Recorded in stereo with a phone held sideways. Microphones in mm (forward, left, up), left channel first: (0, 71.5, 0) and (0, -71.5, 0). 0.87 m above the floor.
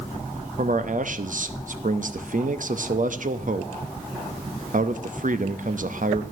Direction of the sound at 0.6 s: 65° right (ahead or behind).